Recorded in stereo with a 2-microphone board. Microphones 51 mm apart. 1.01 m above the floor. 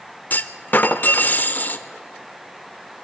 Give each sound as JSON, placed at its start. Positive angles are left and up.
{"t": 0.3, "sound": "a clunk", "side_deg": 40, "distance_m": 0.8}